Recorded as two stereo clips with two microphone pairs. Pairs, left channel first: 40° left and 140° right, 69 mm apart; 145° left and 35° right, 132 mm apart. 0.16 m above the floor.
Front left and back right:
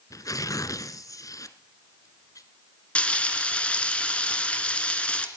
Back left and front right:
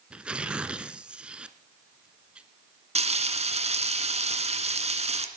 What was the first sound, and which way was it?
Tearing paper, 45° left.